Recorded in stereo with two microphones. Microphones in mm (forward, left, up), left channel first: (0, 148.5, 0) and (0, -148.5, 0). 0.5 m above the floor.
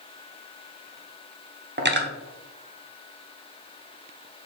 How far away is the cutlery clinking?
About 0.6 m.